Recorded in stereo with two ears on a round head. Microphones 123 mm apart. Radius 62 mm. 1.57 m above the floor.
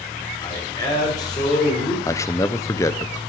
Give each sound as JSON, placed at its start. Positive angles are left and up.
{"t": 0.4, "sound": "a man speaking", "side_deg": 30, "distance_m": 6.0}
{"t": 2.0, "sound": "a man speaking", "side_deg": 20, "distance_m": 0.9}